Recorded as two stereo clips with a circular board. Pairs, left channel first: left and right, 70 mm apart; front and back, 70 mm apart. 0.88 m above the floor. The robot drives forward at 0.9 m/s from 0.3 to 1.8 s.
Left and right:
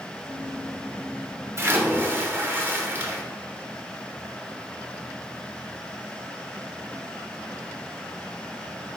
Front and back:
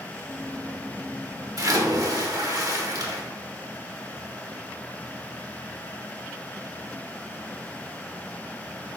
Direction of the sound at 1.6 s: 140° right.